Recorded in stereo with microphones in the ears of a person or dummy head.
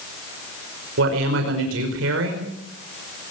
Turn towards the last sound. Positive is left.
turn(degrees=-80)